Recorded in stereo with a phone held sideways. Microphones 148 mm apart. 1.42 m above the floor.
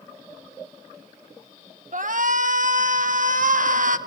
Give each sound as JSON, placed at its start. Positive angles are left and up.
{"t": 1.9, "sound": "a shout", "side_deg": -60, "distance_m": 1.4}